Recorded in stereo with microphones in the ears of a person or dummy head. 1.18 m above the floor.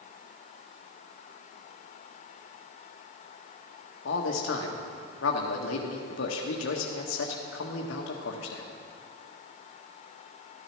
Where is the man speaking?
65° left (ahead or behind), 1.6 m.